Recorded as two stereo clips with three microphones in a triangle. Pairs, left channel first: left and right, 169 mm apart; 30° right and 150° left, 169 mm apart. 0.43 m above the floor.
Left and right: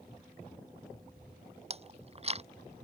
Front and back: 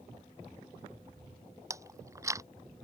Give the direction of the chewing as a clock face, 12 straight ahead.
5 o'clock.